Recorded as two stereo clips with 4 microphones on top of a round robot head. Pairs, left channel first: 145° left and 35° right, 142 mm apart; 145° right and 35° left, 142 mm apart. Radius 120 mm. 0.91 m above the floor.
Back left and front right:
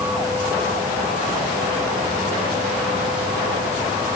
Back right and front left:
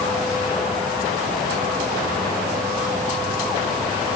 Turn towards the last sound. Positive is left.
No sound to turn to.